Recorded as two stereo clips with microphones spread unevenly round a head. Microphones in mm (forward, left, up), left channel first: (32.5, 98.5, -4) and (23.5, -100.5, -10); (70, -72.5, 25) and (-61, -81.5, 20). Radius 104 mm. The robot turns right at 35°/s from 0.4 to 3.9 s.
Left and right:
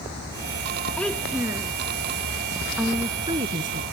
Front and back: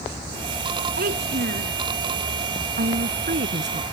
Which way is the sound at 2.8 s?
Straight behind.